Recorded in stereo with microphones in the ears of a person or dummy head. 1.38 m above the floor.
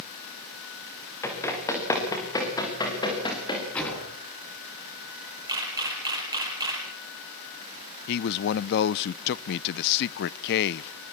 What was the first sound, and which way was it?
Running footsteps, 15° left (ahead or behind).